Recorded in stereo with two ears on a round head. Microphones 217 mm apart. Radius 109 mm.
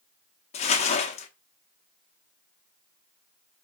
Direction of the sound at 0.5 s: 25° left (ahead or behind).